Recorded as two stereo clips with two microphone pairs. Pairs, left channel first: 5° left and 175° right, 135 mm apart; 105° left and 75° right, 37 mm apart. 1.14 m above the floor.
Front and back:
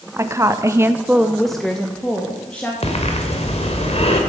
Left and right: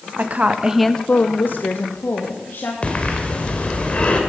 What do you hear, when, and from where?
0.2 s a woman speaking: 105° right, 1.0 m; by 2.7 s 85° left, 2.5 m
2.8 s breathing: 45° left, 2.5 m